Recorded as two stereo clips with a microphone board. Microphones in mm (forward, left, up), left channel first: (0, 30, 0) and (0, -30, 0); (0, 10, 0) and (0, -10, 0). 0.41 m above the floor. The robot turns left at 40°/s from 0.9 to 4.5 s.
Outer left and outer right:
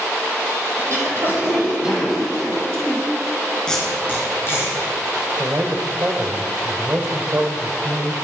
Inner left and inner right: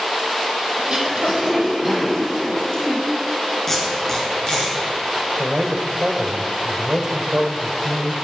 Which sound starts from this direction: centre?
Tape being pulled, at 3.7 s.